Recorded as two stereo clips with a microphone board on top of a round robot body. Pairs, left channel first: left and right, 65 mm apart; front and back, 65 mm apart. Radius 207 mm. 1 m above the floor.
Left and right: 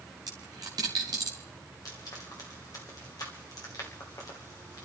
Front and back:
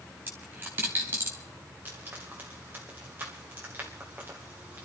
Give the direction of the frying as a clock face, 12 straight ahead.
8 o'clock.